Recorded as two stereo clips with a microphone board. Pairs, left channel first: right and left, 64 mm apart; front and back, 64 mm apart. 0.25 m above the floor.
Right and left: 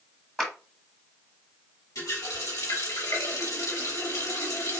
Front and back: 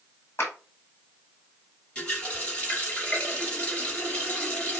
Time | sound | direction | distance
0.4 | a clap | 10° right | 1.6 m
1.9 | a running tap | 70° right | 3 m